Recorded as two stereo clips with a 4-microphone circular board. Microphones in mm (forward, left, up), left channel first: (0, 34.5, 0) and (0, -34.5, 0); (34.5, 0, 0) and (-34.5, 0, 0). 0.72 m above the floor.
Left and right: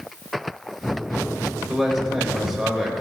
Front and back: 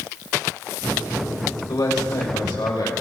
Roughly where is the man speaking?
Ahead.